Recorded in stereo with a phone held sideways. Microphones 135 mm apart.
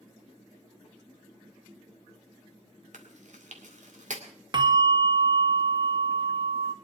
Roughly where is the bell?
Right.